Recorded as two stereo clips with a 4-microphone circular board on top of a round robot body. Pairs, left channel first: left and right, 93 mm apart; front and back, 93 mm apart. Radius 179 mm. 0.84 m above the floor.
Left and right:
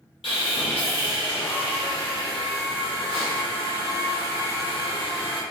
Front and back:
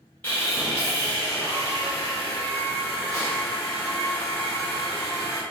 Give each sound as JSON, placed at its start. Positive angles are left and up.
{"t": 0.2, "sound": "sawing", "azimuth_deg": 75, "distance_m": 1.4}